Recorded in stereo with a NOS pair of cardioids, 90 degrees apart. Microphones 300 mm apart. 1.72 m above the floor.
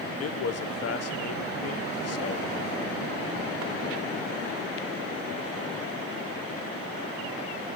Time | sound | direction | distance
0.2 | a man speaking | 55° left | 1.2 m